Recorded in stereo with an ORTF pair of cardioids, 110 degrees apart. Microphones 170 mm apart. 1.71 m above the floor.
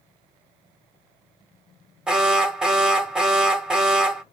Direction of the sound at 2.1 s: 5° right.